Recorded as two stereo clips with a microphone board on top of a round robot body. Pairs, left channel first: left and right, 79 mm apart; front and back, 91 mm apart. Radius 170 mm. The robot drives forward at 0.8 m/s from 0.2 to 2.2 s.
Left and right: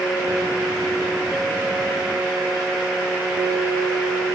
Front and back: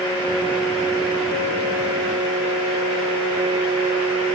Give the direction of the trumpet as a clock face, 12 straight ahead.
I don't hear a trumpet.